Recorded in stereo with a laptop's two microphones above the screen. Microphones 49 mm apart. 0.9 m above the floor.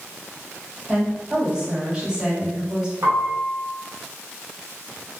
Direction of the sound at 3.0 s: 65° right (ahead or behind).